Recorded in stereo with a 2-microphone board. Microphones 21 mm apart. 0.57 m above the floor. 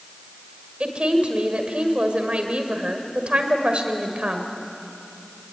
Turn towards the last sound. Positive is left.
turn(degrees=-65)  # may be behind; listen again after turning